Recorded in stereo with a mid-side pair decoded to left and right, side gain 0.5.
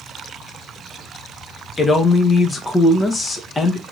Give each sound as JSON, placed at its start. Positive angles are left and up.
{"t": 1.8, "sound": "a man speaking", "azimuth_deg": 25, "distance_m": 1.3}